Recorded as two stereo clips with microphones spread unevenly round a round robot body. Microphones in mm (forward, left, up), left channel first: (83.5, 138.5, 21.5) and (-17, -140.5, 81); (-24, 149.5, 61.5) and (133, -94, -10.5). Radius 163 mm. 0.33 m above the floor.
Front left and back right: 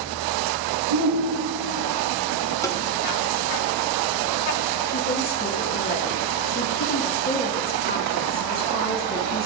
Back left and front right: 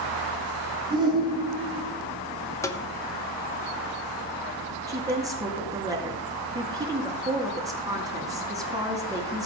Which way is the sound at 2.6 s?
25° left.